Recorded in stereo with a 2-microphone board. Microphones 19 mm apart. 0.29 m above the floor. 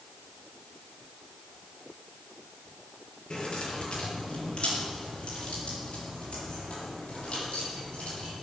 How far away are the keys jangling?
About 5 m.